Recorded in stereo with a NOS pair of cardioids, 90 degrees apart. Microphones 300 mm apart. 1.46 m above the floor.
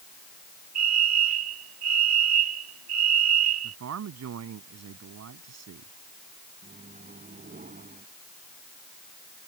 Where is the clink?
I don't hear a clink.